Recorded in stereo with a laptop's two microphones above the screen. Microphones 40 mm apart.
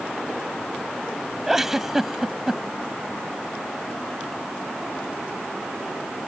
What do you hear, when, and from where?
1.5 s a giggle: 5° right (ahead or behind)